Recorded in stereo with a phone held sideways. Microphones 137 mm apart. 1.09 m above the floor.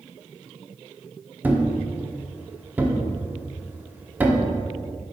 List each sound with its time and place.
1.4 s a thud: 15° right (ahead or behind), 0.7 m